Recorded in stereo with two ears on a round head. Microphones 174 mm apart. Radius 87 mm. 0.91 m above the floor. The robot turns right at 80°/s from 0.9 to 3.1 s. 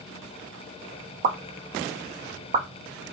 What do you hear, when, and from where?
1.2 s a pop: 40° right (ahead or behind), 0.5 m; by 2.7 s 25° right (ahead or behind), 0.5 m